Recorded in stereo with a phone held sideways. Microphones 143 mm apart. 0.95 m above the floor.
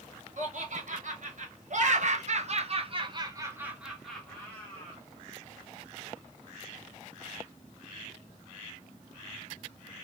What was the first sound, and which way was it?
Laughter, 60° right (ahead or behind).